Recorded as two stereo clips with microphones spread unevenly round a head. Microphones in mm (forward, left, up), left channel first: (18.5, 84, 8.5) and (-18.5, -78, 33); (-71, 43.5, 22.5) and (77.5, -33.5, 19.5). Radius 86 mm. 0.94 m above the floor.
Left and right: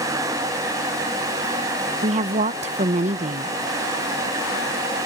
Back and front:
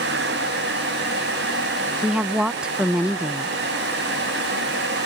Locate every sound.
2.0 s a woman speaking: 105° right, 0.7 m